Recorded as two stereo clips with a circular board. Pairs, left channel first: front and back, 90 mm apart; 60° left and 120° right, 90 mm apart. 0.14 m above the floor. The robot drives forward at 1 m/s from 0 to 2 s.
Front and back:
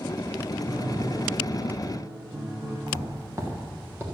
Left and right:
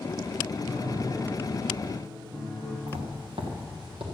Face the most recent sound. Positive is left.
turn(degrees=-115)